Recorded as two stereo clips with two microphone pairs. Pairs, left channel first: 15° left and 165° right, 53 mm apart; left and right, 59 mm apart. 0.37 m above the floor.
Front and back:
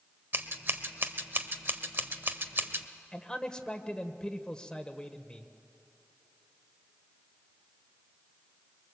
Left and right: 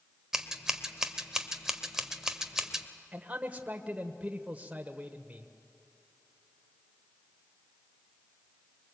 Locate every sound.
0.3 s scissors: 170° right, 1.2 m
3.1 s a man speaking: 45° right, 1.1 m